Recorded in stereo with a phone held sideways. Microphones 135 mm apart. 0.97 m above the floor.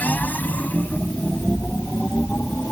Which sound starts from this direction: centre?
A machine running, at 0.0 s.